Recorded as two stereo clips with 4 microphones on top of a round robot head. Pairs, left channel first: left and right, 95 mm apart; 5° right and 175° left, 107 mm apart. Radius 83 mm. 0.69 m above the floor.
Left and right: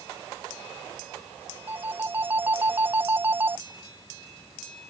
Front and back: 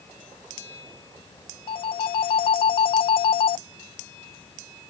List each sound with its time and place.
1.7 s a phone ringing: 25° right